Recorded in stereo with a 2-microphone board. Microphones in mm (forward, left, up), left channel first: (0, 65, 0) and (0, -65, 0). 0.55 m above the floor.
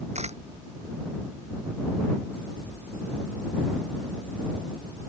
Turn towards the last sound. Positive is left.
turn(degrees=-55)  # may be behind; listen again after turning